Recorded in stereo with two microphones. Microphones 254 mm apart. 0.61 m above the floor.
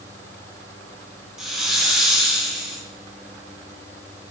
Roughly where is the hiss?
Centre.